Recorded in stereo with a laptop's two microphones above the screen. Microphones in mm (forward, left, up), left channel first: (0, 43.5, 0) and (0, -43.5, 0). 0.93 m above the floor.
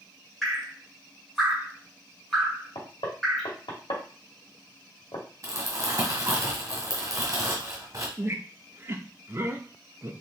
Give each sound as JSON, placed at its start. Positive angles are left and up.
{"t": 0.4, "sound": "dripping", "side_deg": 5, "distance_m": 1.7}
{"t": 2.8, "sound": "knocking", "side_deg": 65, "distance_m": 1.7}
{"t": 5.4, "sound": "crumpling", "side_deg": -40, "distance_m": 1.5}
{"t": 8.2, "sound": "a squeak", "side_deg": -30, "distance_m": 0.8}